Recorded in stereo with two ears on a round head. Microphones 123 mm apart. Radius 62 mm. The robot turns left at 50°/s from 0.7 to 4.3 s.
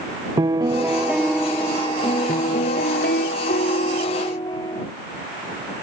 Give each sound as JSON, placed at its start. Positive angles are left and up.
{"t": 0.4, "sound": "a piano", "azimuth_deg": -150}